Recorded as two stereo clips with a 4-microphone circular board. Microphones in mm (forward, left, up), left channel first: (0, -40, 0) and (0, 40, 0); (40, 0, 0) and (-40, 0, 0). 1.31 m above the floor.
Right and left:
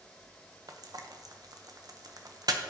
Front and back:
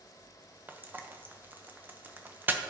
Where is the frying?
120° left, 0.8 m.